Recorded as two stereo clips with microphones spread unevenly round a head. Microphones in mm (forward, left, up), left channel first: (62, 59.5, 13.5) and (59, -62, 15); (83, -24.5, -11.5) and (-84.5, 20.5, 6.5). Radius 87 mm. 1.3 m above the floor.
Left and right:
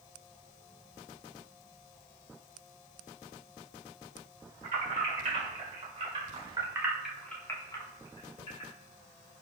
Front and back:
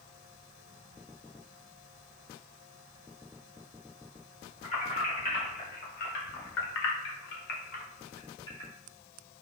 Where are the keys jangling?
70° right, 1.6 m; by 8.7 s 60° left, 1.1 m.